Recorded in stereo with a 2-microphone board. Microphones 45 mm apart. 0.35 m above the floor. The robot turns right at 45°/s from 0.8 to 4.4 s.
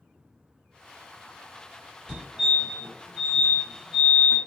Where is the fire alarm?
20° right (ahead or behind), 1.8 m; by 4.4 s 5° left (ahead or behind), 1.8 m.